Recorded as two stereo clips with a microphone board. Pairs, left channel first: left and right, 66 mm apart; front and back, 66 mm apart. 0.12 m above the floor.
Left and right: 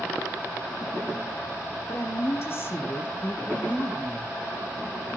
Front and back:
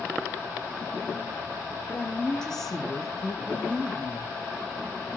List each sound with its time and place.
1.9 s a woman speaking: 65° left, 2.5 m; by 4.3 s 155° left, 2 m